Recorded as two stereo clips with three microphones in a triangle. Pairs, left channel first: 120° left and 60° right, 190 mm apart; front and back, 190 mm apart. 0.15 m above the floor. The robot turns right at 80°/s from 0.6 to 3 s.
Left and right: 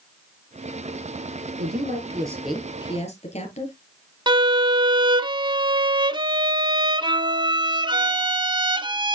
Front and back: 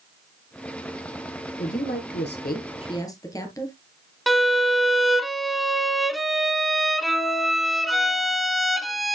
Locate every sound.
1.6 s a woman speaking: 40° right, 2.5 m; by 3.8 s 70° left, 2.5 m
4.3 s a violin: 90° right, 0.5 m